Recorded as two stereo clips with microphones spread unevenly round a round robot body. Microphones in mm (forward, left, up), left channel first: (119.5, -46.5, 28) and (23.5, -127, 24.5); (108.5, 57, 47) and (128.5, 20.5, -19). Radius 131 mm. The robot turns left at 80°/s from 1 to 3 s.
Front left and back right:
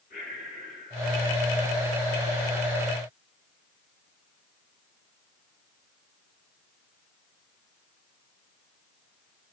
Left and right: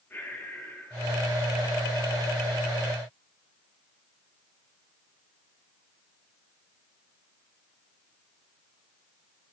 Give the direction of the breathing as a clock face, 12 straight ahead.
9 o'clock.